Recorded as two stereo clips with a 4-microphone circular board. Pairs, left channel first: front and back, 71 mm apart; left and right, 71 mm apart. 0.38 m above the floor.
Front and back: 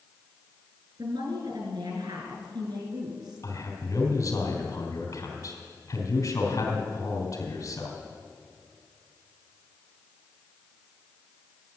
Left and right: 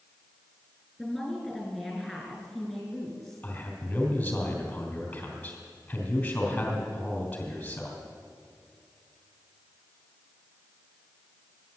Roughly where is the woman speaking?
Behind.